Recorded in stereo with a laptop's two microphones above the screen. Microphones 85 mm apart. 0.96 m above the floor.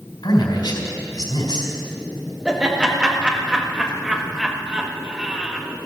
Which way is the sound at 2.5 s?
10° right (ahead or behind).